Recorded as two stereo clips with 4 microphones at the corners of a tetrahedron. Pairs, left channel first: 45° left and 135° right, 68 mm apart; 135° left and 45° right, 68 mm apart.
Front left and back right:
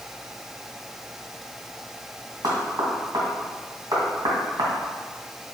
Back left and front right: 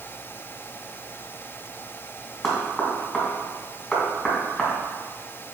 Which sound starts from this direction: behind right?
Knocking, at 2.4 s.